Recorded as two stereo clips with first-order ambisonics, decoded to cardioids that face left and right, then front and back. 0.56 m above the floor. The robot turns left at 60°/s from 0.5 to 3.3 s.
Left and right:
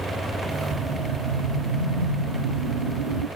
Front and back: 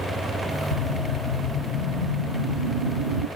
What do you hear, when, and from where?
0.7 s a whoosh: 10° left, 2.5 m; by 3.3 s 140° right, 2.5 m